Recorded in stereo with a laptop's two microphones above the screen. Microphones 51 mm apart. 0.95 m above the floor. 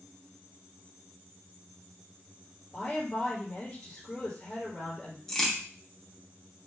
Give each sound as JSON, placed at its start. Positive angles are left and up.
{"t": 2.7, "sound": "a woman speaking", "side_deg": 15, "distance_m": 1.6}
{"t": 5.3, "sound": "a crack", "side_deg": 10, "distance_m": 0.8}